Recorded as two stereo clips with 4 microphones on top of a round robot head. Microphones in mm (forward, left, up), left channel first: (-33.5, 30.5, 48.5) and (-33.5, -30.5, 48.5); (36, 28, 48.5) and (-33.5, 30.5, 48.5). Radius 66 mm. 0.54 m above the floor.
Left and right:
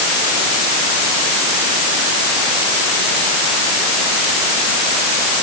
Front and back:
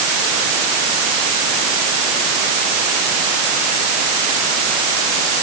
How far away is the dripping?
No dripping in this recording.